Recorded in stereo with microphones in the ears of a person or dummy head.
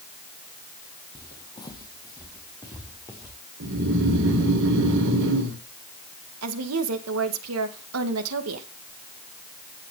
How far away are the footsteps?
About 3 m.